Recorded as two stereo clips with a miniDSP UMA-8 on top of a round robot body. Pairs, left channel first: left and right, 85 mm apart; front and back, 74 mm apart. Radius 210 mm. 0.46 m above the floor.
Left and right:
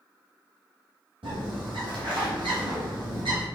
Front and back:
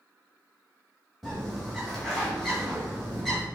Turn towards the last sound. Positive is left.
turn(degrees=-85)